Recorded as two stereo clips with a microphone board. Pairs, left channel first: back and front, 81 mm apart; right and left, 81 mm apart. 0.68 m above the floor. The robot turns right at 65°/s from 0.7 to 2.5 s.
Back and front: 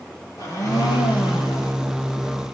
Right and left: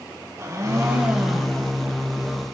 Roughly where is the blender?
Behind left.